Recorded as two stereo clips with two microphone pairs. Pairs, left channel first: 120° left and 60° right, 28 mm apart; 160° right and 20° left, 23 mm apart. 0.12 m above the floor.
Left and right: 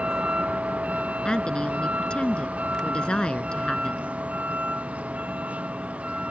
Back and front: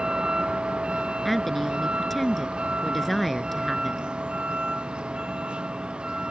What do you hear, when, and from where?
0.0 s a vehicle: 20° right
1.2 s a woman speaking: 125° left